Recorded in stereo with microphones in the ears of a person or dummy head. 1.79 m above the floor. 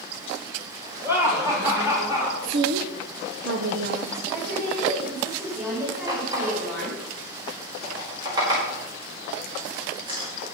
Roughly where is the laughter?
Centre.